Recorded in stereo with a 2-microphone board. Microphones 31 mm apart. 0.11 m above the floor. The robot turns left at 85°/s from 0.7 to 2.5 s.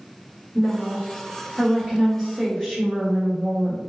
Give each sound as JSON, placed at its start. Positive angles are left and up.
{"t": 0.6, "sound": "a woman speaking", "side_deg": -25, "distance_m": 1.6}